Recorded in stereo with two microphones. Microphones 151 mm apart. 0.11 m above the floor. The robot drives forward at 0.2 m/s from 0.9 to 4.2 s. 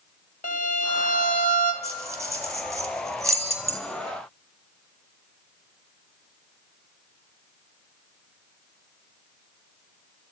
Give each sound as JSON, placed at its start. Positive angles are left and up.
{"t": 0.4, "sound": "a violin", "side_deg": 65, "distance_m": 0.6}
{"t": 1.8, "sound": "keys jangling", "side_deg": -20, "distance_m": 0.8}